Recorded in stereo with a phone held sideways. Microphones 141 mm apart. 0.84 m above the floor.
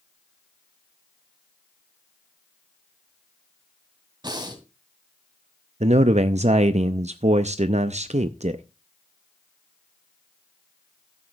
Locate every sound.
4.2 s breathing: 35° right (ahead or behind), 2.5 m
5.8 s a man speaking: 55° right (ahead or behind), 0.6 m